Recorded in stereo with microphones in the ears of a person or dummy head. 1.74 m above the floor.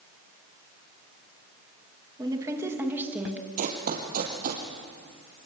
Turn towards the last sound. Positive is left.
turn(degrees=-50)  # may be behind; listen again after turning